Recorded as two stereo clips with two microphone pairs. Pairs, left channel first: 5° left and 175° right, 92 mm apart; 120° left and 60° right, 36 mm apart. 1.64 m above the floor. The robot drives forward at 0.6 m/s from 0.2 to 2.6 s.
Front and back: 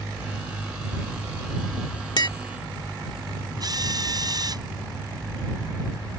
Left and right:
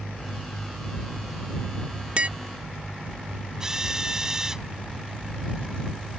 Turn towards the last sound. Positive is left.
turn(degrees=-135)